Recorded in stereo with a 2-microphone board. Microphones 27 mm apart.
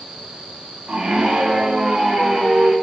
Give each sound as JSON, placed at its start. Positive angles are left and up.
{"t": 0.9, "sound": "a scream", "side_deg": -50, "distance_m": 3.0}